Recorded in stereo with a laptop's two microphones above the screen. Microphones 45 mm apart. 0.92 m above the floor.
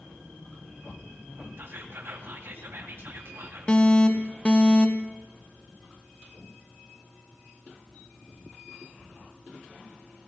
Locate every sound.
1.6 s whispering: 60° right (ahead or behind), 1.9 m
3.7 s an alarm: 25° left (ahead or behind), 0.7 m